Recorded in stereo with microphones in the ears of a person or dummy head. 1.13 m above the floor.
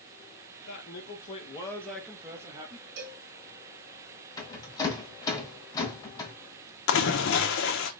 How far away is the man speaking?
About 1.7 m.